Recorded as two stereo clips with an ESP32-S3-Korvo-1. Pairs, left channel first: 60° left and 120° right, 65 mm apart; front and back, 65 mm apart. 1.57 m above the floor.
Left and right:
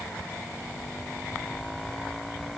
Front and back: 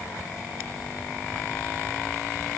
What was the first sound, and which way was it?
Only background noise.